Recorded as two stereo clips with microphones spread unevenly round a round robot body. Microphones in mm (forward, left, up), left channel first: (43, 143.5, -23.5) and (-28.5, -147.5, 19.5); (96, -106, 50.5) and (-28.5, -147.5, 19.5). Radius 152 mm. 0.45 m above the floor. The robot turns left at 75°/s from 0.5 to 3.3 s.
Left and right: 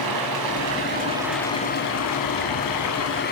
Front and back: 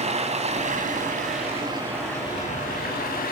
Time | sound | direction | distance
0.0 | running water | 135° right | 3.5 m